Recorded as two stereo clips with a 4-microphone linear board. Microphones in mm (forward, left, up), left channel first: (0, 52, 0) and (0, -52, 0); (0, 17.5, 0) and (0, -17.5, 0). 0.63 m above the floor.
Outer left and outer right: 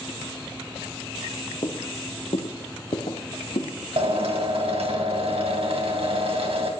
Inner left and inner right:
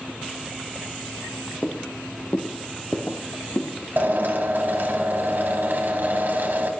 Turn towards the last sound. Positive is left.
turn(degrees=-70)  # may be behind; listen again after turning